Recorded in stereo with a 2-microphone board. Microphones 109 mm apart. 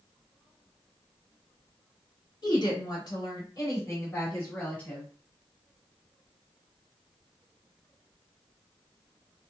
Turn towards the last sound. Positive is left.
turn(degrees=15)  # may be behind; listen again after turning